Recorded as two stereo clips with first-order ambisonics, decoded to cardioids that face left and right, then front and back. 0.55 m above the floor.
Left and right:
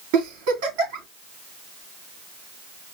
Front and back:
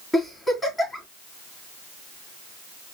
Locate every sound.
0.1 s a giggle: 90° right, 3.5 m